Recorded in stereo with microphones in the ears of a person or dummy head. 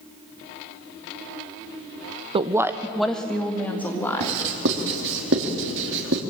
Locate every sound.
2.3 s a woman speaking: 35° right (ahead or behind), 0.7 m; by 4.4 s 10° left (ahead or behind), 3.5 m
4.2 s writing: 65° right (ahead or behind), 2.5 m